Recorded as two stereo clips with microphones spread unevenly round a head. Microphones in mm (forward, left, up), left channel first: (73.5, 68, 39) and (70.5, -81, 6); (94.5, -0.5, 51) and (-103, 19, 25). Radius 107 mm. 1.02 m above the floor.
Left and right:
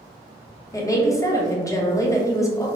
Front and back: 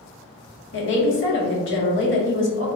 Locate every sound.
0.7 s a woman speaking: 20° left, 1.1 m